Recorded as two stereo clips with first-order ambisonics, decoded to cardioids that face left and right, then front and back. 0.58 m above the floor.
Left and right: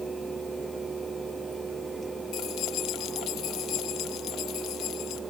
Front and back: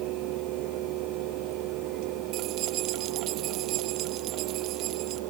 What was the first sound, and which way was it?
Keys jangling, 135° left.